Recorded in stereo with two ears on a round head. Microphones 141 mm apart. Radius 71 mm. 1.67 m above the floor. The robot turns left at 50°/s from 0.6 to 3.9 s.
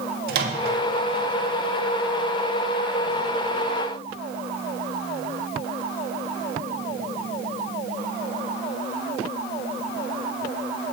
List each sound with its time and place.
0.3 s a microwave: 65° right (ahead or behind), 2.5 m; by 0.8 s 70° right (ahead or behind), 2.5 m